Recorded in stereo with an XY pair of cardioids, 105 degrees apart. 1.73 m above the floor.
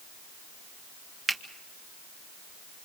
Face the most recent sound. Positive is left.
turn(degrees=-30)